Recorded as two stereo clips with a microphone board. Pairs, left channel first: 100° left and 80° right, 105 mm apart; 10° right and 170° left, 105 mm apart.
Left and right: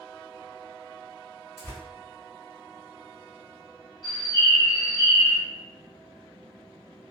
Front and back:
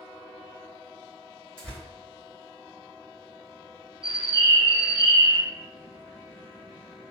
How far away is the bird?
About 0.9 m.